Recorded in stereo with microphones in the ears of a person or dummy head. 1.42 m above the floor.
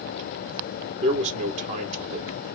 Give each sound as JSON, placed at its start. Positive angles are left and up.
{"t": 1.0, "sound": "a man speaking", "side_deg": -35, "distance_m": 0.7}